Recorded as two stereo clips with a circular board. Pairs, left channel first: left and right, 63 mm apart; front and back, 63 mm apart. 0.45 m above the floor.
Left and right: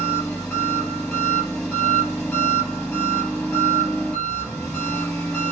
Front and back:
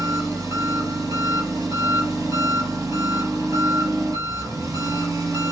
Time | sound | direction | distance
0.0 | an engine running | 155° left | 2.5 m